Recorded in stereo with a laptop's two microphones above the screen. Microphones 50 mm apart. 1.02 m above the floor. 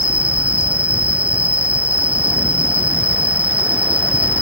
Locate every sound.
0.0 s an insect: 30° right (ahead or behind)